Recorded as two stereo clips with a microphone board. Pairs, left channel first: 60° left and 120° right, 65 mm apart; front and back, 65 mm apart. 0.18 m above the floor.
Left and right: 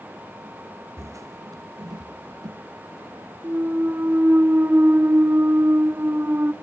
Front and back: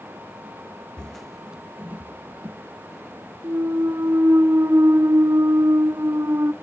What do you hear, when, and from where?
1.0 s footsteps: 80° right, 0.7 m; by 2.6 s 125° right, 1.3 m
3.4 s a clunk: 165° right, 0.7 m